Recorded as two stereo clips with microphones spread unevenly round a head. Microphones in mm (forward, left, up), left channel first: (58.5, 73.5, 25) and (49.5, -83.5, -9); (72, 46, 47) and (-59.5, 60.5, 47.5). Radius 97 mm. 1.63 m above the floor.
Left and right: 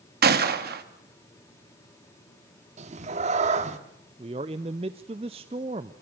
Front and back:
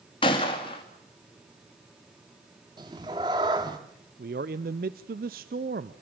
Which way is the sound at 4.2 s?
160° right.